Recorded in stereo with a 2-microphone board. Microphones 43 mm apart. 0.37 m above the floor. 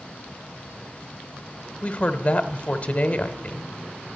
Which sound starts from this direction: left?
A woman speaking, at 1.8 s.